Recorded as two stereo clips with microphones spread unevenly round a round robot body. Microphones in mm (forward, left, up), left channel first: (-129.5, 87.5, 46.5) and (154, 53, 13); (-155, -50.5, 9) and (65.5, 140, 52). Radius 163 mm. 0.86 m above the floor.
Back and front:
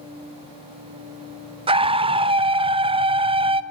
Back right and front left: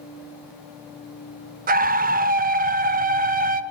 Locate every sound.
1.7 s a scream: straight ahead, 0.5 m